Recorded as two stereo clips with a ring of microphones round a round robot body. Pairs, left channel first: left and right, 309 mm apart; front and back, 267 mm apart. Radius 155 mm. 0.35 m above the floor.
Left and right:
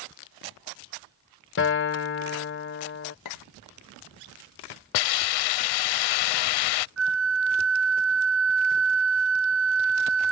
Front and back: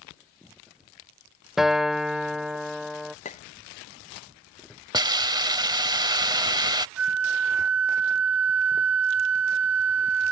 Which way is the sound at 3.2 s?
65° left.